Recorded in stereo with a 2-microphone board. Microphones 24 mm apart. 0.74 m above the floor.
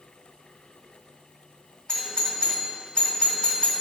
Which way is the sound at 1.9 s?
40° left (ahead or behind).